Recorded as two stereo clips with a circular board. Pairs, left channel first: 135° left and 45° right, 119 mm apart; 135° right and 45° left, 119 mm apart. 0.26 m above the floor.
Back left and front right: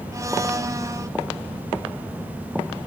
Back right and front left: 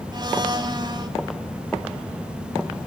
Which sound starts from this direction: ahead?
A blender, at 0.1 s.